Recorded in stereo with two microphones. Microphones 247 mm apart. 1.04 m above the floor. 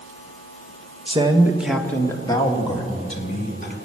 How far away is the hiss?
No hiss in this recording.